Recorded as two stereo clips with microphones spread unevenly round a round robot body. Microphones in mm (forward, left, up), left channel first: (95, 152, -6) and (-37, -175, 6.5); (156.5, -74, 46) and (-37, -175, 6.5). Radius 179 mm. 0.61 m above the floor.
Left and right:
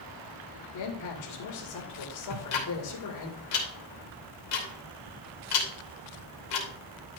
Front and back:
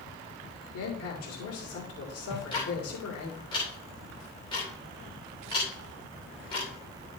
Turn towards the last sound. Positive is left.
turn(degrees=105)